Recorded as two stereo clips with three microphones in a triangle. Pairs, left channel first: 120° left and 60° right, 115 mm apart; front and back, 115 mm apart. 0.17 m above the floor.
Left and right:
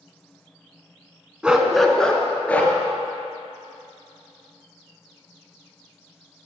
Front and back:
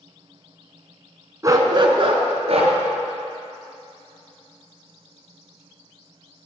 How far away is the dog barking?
About 0.7 m.